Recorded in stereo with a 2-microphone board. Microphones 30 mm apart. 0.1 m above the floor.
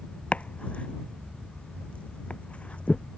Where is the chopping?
40° left (ahead or behind).